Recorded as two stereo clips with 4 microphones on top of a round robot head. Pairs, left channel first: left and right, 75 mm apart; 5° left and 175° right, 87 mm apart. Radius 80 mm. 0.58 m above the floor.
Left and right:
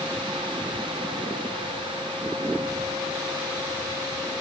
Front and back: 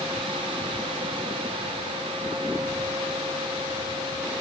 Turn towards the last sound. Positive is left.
No sound to turn to.